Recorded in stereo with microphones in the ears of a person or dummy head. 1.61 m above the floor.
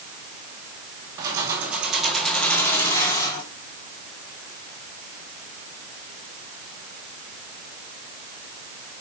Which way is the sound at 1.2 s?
15° right (ahead or behind).